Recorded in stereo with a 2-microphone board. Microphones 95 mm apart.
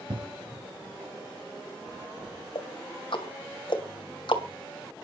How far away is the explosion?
About 7 m.